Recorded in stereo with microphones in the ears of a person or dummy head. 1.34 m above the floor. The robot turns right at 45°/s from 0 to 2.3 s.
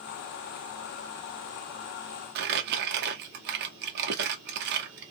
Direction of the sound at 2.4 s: 60° right (ahead or behind).